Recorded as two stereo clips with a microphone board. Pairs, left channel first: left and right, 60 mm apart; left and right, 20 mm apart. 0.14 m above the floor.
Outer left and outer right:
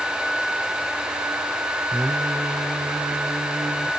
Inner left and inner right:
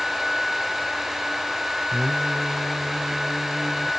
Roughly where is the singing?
Centre.